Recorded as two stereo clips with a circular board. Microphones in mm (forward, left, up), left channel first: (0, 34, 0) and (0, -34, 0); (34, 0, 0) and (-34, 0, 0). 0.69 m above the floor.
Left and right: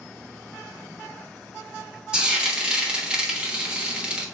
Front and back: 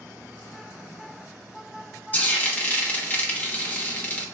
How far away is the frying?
About 1.1 m.